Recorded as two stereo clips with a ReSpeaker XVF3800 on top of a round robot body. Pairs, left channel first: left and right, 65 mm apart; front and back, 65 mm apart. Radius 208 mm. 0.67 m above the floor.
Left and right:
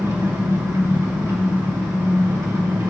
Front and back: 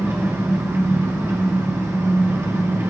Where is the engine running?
130° right, 2.5 m.